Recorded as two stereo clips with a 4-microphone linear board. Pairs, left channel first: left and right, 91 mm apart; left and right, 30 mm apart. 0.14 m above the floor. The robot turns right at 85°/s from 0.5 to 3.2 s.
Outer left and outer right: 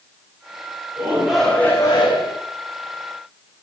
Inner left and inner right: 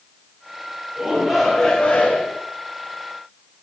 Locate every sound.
1.0 s a shout: 35° right, 9 m; by 2.4 s 85° left, 9 m